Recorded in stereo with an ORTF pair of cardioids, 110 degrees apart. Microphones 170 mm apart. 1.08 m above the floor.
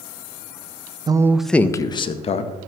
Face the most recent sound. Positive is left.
turn(degrees=40)